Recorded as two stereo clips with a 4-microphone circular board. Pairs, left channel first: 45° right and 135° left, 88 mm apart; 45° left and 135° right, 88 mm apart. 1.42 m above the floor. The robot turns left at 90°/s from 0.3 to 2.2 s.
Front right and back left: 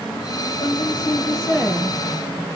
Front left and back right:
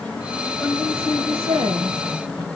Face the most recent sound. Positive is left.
turn(degrees=155)